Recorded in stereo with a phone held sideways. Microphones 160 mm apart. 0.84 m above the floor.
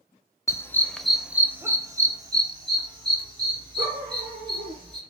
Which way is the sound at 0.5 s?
20° left (ahead or behind).